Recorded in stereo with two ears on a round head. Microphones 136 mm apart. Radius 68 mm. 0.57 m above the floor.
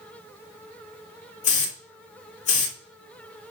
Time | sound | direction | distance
1.4 | a hiss | 45° left (ahead or behind) | 1.6 m